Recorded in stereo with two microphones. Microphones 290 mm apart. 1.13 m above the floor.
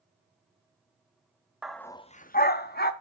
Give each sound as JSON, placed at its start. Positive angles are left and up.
{"t": 1.6, "sound": "a dog barking", "side_deg": -5, "distance_m": 0.6}